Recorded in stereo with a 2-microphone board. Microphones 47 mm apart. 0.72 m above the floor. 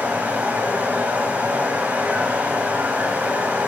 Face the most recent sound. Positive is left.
turn(degrees=-40)  # may be behind; listen again after turning